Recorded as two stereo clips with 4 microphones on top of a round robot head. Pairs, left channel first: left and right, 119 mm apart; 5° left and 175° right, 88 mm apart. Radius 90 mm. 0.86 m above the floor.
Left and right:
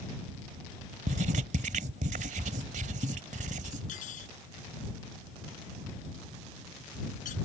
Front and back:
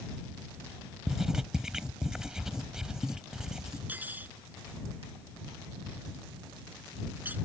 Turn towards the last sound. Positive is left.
turn(degrees=115)